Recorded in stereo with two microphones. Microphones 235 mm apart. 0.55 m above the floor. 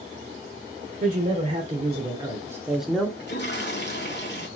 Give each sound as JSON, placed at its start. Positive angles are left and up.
{"t": 1.0, "sound": "a man speaking", "side_deg": -40, "distance_m": 2.0}
{"t": 3.2, "sound": "a toilet flushing", "side_deg": 45, "distance_m": 1.3}